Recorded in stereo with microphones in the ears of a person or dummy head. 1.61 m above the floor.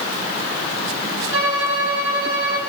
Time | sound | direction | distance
1.3 | a violin | 80° right | 7 m